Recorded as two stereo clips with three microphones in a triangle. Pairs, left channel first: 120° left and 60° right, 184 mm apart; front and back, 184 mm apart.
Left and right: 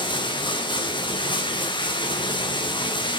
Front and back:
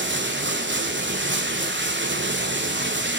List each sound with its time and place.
0.0 s running water: 175° right, 1.3 m